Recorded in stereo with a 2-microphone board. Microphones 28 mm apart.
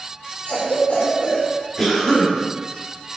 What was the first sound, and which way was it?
A cough, 65° left (ahead or behind).